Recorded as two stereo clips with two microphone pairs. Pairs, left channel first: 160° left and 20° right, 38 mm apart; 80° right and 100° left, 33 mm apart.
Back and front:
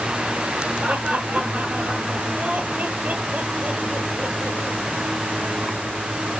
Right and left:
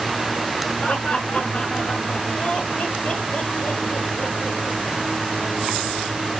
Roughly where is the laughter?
Ahead right.